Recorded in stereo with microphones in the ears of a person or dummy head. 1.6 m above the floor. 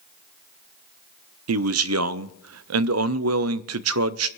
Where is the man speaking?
70° right (ahead or behind), 0.5 m.